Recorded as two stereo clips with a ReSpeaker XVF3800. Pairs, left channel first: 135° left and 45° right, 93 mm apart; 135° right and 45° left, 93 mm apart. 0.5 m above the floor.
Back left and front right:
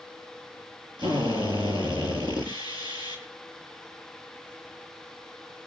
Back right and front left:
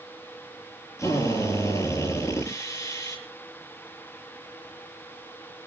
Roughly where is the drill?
Right.